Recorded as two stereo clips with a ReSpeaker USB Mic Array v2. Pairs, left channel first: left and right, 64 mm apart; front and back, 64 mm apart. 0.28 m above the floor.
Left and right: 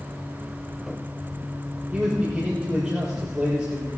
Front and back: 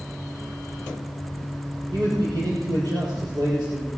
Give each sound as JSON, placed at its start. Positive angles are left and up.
{"t": 1.9, "sound": "a man speaking", "azimuth_deg": -170, "distance_m": 6.5}